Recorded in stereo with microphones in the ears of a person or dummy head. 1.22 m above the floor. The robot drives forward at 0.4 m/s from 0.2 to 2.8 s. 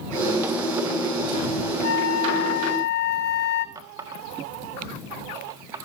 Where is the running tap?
25° right (ahead or behind), 1.4 m.